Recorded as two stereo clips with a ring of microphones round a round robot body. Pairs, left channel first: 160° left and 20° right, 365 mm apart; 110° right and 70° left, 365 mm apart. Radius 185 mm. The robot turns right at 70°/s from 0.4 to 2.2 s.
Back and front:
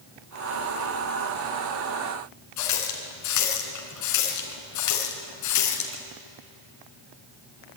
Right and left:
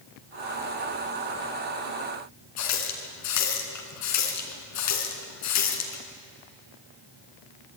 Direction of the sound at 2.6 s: 160° right.